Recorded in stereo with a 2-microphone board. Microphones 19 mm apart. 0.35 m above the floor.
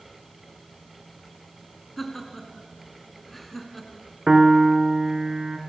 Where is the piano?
25° right (ahead or behind), 1.4 m.